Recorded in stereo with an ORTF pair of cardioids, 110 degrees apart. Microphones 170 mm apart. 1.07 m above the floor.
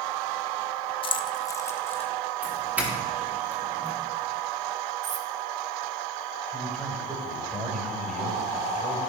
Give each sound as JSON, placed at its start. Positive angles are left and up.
{"t": 1.0, "sound": "keys jangling", "azimuth_deg": 35, "distance_m": 0.8}
{"t": 2.4, "sound": "a doorbell", "azimuth_deg": -10, "distance_m": 3.0}
{"t": 5.0, "sound": "cutlery clinking", "azimuth_deg": -45, "distance_m": 1.2}
{"t": 6.5, "sound": "a man speaking", "azimuth_deg": 0, "distance_m": 6.0}